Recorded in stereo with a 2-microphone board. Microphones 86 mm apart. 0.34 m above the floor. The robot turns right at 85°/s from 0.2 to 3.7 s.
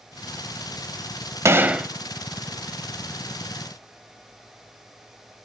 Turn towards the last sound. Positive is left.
turn(degrees=150)